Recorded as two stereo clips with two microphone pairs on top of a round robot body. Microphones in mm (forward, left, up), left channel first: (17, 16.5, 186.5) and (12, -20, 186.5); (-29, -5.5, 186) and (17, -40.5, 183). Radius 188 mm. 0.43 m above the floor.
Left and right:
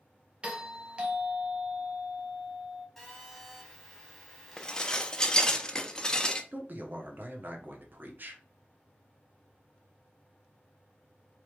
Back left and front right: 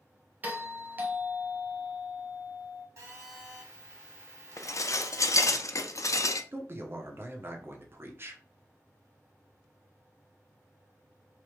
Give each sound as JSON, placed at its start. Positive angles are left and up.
{"t": 0.4, "sound": "a doorbell", "azimuth_deg": -55, "distance_m": 1.3}
{"t": 3.0, "sound": "a phone buzzing", "azimuth_deg": -5, "distance_m": 1.8}
{"t": 4.6, "sound": "dishes clattering", "azimuth_deg": 150, "distance_m": 0.6}
{"t": 6.5, "sound": "a man speaking", "azimuth_deg": -75, "distance_m": 1.1}